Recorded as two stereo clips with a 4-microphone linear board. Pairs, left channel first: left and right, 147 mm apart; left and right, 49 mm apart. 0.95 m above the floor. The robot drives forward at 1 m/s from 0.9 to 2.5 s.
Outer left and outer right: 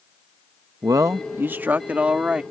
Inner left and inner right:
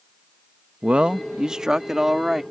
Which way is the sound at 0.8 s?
25° right (ahead or behind).